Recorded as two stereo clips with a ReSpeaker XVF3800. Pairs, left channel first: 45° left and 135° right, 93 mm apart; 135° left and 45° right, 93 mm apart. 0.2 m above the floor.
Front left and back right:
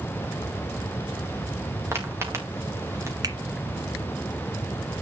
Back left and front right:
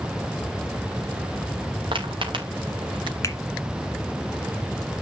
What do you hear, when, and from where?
1.9 s footsteps: 70° right, 4.5 m; by 3.1 s 75° right, 3.5 m
3.2 s a finger snap: 175° right, 1.6 m